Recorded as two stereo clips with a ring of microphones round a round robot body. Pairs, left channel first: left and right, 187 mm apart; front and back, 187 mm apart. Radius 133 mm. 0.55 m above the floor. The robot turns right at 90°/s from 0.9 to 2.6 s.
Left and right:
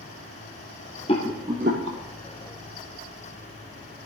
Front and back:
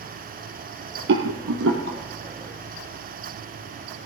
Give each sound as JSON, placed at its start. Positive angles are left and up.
{"t": 1.1, "sound": "a rattle", "azimuth_deg": 160, "distance_m": 2.5}